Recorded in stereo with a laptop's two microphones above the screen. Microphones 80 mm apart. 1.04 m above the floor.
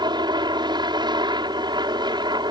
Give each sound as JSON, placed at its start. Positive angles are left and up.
{"t": 0.0, "sound": "a helicopter", "side_deg": -60}